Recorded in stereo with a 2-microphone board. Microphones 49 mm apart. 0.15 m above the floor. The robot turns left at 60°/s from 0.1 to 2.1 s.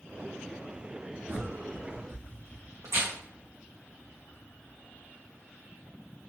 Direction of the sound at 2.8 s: 85° right.